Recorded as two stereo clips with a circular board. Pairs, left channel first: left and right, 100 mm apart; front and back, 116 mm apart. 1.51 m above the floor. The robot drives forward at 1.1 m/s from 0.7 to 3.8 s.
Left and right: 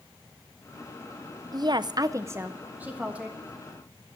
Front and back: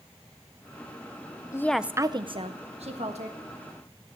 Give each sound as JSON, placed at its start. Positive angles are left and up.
{"t": 1.5, "sound": "a woman speaking", "azimuth_deg": -55, "distance_m": 0.6}